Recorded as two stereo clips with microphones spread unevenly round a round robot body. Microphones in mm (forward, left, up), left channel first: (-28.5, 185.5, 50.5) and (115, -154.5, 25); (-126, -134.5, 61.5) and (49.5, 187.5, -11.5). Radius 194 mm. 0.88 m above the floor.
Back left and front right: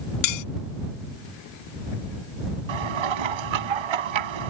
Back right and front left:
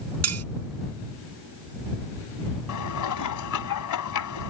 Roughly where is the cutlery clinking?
Left.